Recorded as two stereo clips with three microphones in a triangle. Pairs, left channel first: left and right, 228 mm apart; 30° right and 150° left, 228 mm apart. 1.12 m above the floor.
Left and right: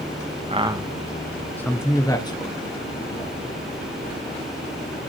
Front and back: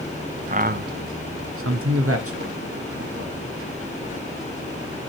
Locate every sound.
0.5 s a man speaking: 150° right, 0.6 m; by 5.0 s 145° left, 3 m